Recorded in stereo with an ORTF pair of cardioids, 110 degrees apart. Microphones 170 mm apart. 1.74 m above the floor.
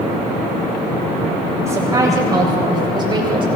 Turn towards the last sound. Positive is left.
turn(degrees=-30)